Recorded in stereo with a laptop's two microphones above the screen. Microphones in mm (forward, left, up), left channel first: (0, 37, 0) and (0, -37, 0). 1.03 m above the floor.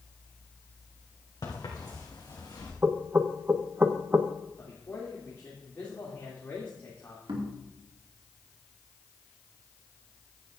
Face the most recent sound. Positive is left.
turn(degrees=-85)